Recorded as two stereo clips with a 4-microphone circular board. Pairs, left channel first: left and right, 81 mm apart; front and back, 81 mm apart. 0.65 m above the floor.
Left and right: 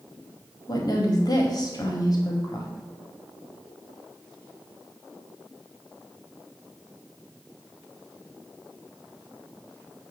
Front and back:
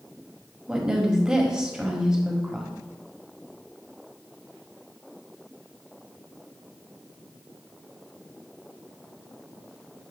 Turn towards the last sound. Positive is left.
turn(degrees=100)